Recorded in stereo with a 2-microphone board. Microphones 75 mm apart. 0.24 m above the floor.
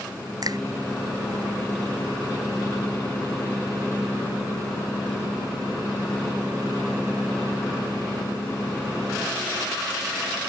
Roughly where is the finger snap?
Right.